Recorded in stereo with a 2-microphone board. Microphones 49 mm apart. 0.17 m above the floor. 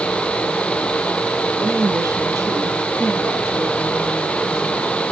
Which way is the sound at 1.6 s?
75° right (ahead or behind).